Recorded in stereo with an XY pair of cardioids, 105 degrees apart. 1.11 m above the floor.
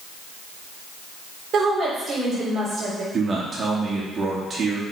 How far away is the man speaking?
About 2 m.